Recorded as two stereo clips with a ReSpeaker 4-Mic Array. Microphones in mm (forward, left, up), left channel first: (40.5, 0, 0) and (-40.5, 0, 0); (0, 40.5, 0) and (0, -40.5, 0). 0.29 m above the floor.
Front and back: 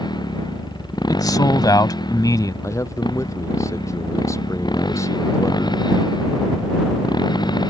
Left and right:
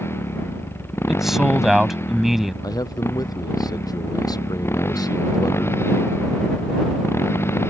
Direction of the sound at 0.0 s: 30° left.